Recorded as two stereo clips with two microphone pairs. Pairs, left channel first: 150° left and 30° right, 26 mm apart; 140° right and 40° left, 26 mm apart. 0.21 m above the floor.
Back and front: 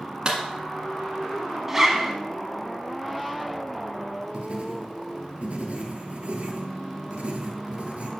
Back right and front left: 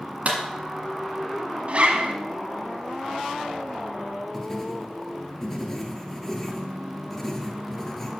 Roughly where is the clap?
Ahead.